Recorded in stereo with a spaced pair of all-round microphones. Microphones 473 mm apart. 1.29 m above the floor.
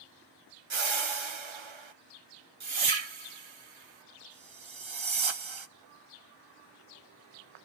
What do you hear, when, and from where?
0.7 s a whoosh: 75° right (ahead or behind), 0.8 m